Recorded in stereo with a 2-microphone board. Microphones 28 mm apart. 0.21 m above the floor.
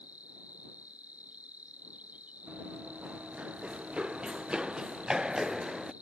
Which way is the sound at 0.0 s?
65° right (ahead or behind).